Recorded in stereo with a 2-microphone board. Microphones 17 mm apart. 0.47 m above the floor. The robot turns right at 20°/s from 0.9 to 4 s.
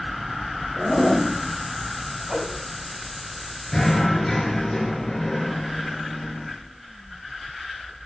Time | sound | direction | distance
0.8 | a zipper | 60° left (ahead or behind) | 2.5 m
2.3 | a whoosh | 35° right (ahead or behind) | 2.5 m
3.7 | knocking | 40° left (ahead or behind) | 4.5 m